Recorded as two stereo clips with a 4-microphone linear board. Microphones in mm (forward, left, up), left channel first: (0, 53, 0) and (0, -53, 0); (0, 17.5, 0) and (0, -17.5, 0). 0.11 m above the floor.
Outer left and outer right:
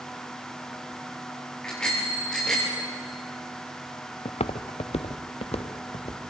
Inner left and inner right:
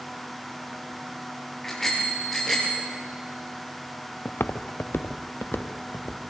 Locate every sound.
1.6 s a bicycle bell: 10° left (ahead or behind), 7.5 m
4.2 s footsteps: 75° left (ahead or behind), 0.9 m; by 6.2 s 60° left (ahead or behind), 1.8 m